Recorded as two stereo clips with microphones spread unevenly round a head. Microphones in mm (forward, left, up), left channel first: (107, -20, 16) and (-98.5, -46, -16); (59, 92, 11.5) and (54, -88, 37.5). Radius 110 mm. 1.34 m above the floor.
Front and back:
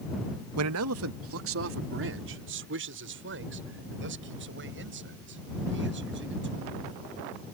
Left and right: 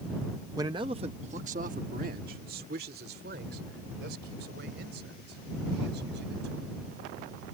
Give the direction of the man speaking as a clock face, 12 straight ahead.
6 o'clock.